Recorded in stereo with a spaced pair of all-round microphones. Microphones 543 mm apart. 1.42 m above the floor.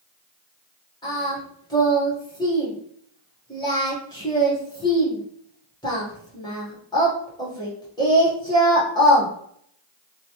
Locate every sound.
1.0 s singing: 10° left (ahead or behind), 1.2 m